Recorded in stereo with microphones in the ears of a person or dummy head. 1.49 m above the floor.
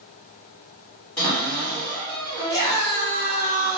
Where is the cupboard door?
10° left (ahead or behind), 2.0 m.